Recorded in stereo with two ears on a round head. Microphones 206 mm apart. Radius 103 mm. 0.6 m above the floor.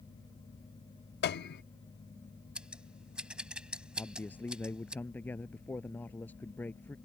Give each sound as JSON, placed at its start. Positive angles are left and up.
{"t": 1.2, "sound": "a piano", "side_deg": 45}
{"t": 2.5, "sound": "scissors", "side_deg": -5}
{"t": 4.0, "sound": "a man speaking", "side_deg": 10}